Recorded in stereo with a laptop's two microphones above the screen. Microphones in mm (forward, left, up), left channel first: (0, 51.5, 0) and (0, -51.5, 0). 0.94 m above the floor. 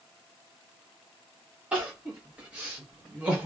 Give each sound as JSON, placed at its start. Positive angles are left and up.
{"t": 1.7, "sound": "crying", "side_deg": -10, "distance_m": 0.8}